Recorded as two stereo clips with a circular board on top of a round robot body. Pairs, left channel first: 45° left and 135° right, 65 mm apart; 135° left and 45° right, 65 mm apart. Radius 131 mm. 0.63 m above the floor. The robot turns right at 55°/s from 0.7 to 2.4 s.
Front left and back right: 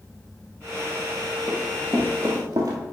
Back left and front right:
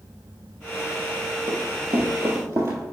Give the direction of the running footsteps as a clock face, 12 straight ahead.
2 o'clock.